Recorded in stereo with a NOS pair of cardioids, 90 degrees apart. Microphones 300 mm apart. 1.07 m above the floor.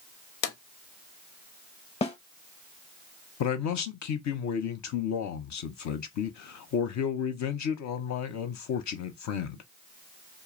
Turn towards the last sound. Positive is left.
turn(degrees=65)